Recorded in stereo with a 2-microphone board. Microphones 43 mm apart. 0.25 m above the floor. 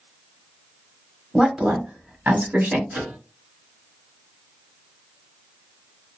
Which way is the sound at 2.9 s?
50° right (ahead or behind).